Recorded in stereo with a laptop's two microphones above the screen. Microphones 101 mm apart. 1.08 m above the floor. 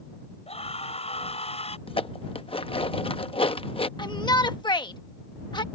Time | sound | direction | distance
0.5 | a scream | 75° left (ahead or behind) | ?
1.9 | dishes clattering | 60° left (ahead or behind) | ?
4.0 | a shout | 45° left (ahead or behind) | ?